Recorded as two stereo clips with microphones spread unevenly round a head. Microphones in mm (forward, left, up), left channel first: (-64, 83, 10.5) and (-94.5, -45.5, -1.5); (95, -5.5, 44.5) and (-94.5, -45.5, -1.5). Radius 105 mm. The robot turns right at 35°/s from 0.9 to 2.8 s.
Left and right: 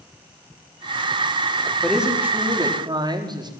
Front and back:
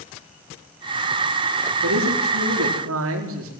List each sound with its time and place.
1.8 s a man speaking: 165° left, 4.5 m; by 3.5 s 160° right, 4.5 m